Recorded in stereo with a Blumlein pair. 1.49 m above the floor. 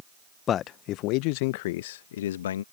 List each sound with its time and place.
0.5 s a man speaking: 25° left; by 2.6 s 60° left